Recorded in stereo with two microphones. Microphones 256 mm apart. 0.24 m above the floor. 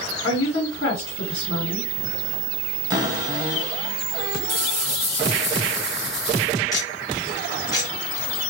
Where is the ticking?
15° left (ahead or behind), 2 m.